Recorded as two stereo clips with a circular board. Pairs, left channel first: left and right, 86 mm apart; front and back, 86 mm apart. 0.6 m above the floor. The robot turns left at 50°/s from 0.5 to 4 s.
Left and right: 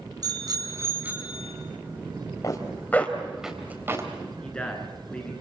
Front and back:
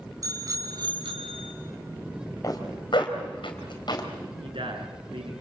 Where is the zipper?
45° left, 4 m; by 4.1 s 35° right, 4 m.